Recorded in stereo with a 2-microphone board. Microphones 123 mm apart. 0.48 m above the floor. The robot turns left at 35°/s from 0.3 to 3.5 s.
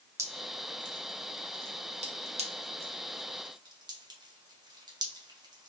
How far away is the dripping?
About 0.8 m.